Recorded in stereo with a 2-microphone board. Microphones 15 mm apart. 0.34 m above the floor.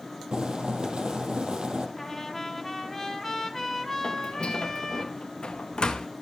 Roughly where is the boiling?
Right.